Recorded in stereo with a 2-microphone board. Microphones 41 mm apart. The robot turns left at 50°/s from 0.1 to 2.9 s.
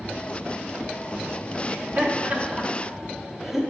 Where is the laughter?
60° right (ahead or behind), 1.2 m; by 3.6 s 10° right (ahead or behind), 1.2 m.